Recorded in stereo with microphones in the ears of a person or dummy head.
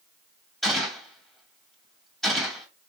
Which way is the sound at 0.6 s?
Centre (ahead or behind).